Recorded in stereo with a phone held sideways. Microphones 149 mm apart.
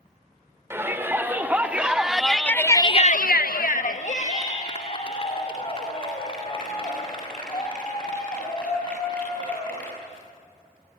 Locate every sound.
0.7 s a shout: 15° right (ahead or behind), 3.5 m; by 9.9 s 30° left (ahead or behind), 9 m